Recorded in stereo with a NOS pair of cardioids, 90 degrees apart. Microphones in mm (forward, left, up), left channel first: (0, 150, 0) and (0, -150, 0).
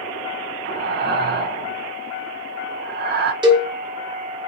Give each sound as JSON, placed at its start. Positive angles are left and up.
{"t": 0.7, "sound": "breathing", "azimuth_deg": -35, "distance_m": 0.5}
{"t": 3.4, "sound": "a cowbell", "azimuth_deg": -15, "distance_m": 0.8}